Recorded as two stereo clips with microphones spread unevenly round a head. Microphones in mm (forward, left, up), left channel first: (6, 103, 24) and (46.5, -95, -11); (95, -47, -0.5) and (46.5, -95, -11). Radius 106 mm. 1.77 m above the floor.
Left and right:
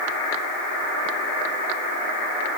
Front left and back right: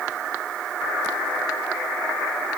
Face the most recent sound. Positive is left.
No sound to turn to.